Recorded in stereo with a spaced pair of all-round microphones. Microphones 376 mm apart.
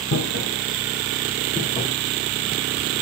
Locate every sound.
0.1 s footsteps: 35° left (ahead or behind), 1.9 m; by 1.9 s 5° left (ahead or behind), 1.8 m